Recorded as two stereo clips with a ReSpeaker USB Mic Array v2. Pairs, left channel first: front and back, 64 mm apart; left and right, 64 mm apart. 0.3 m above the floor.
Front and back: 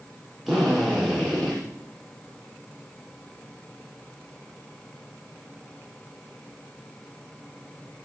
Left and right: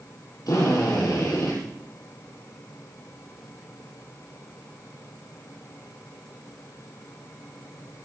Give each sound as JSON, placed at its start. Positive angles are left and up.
{"t": 0.5, "sound": "a drill", "azimuth_deg": 90, "distance_m": 6.5}